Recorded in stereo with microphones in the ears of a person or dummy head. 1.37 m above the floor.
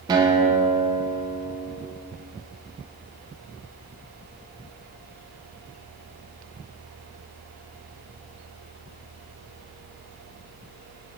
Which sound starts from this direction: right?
A guitar, at 0.1 s.